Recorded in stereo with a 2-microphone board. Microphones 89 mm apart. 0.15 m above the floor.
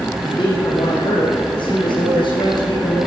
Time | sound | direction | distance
0.2 | a man speaking | 60° left (ahead or behind) | 2.5 m